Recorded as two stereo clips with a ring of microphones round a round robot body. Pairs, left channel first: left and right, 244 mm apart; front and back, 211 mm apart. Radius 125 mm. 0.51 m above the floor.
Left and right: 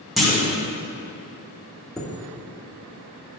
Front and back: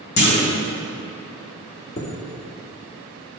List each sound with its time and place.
0.2 s a clunk: straight ahead, 1.4 m
2.0 s a chime: 5° left, 1.2 m